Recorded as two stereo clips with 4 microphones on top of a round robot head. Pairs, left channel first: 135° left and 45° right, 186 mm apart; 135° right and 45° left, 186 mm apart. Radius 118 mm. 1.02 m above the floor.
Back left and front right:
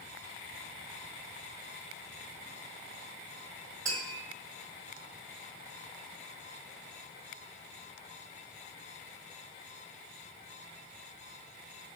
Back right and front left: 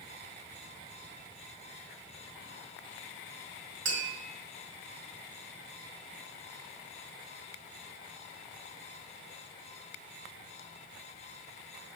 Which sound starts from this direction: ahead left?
Tapping, at 3.9 s.